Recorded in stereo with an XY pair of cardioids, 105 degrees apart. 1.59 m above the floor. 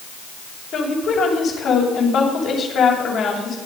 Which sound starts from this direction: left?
A woman speaking, at 0.7 s.